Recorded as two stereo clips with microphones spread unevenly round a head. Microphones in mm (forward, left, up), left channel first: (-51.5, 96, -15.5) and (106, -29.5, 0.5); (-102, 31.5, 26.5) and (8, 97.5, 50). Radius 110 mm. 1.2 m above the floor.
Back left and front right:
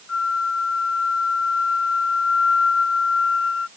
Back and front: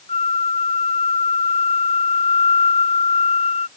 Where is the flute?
175° left.